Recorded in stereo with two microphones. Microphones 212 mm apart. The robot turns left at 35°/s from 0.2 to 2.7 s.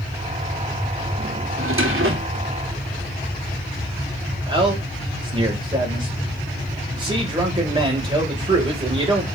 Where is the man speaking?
25° right (ahead or behind), 3 m.